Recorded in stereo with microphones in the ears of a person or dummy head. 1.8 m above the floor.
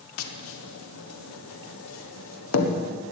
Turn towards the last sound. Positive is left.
turn(degrees=85)